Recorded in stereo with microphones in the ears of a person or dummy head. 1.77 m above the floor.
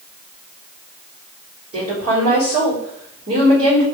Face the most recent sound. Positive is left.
turn(degrees=-25)  # may be behind; listen again after turning